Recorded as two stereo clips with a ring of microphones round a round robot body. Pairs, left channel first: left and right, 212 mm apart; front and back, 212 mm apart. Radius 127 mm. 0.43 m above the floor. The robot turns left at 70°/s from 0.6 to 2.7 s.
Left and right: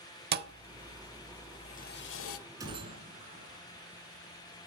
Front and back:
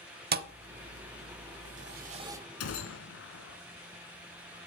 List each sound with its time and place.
0.3 s a thud: 135° right, 0.7 m; by 2.4 s 100° left, 0.7 m
2.6 s a gunshot: 15° right, 1.6 m; by 3.6 s 20° right, 1.6 m